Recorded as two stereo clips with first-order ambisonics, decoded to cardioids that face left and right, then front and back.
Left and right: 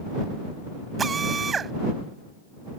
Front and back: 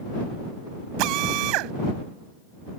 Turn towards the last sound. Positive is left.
turn(degrees=-160)